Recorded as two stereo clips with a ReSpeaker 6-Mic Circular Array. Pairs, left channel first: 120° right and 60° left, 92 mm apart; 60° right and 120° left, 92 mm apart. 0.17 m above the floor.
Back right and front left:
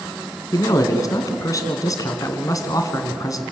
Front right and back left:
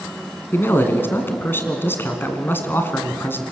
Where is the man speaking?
110° right, 2 m.